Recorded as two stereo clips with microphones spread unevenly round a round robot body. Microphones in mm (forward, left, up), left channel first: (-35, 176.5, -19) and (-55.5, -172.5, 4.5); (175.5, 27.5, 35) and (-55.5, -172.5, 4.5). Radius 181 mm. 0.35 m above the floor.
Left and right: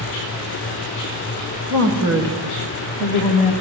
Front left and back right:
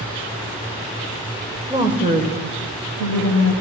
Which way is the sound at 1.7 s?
70° right.